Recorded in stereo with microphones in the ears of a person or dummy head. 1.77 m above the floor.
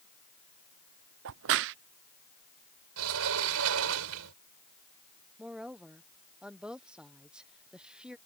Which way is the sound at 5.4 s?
5° right (ahead or behind).